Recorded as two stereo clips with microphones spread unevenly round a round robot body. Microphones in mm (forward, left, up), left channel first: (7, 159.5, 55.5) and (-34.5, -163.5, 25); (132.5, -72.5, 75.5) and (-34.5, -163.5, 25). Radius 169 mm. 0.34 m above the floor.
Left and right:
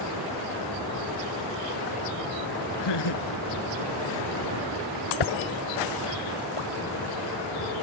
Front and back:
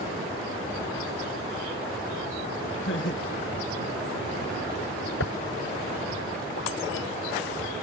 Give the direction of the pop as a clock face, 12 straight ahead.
10 o'clock.